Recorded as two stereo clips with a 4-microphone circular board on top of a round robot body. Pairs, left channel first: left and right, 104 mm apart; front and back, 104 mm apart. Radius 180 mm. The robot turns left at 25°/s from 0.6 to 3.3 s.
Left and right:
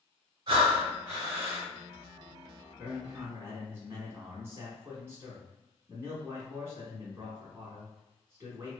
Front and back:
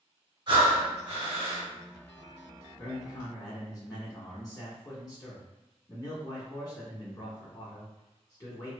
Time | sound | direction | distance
0.5 | breathing | 135° right | 1.5 m
2.8 | a man speaking | 20° right | 1.6 m